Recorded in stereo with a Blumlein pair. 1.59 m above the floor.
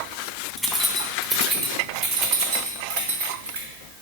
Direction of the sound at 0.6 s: 5° right.